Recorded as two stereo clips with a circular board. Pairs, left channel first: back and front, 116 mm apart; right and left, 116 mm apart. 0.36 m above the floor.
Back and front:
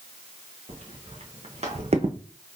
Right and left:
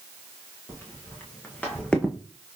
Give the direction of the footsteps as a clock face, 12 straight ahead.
1 o'clock.